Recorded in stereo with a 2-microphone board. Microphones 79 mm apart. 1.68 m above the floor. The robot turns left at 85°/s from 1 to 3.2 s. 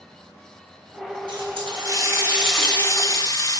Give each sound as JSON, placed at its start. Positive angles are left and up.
{"t": 1.3, "sound": "a running tap", "azimuth_deg": -75, "distance_m": 9.0}